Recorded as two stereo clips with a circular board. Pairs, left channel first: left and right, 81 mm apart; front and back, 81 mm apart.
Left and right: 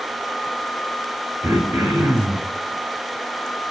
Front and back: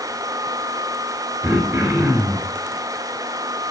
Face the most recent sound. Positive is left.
turn(degrees=-135)